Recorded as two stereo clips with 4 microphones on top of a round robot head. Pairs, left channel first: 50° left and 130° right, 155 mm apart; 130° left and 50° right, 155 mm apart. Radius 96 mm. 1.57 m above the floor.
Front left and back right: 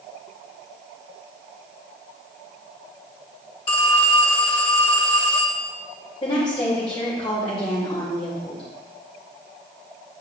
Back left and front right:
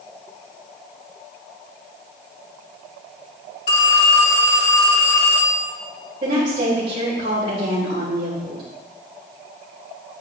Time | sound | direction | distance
3.7 | a phone ringing | 105° left | 1.4 m
6.2 | a woman speaking | 10° right | 2.5 m